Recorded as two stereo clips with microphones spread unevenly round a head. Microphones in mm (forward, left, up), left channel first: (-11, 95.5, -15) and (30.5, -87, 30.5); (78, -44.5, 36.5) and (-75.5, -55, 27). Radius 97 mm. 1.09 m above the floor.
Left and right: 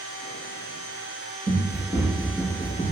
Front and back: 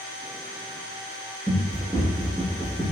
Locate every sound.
1.5 s running footsteps: 110° right, 1.3 m; by 2.9 s straight behind, 1.1 m